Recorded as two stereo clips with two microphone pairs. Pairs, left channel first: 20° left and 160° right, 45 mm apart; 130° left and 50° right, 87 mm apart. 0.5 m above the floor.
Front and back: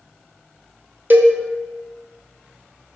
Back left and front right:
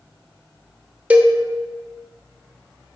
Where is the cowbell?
120° right, 0.7 m.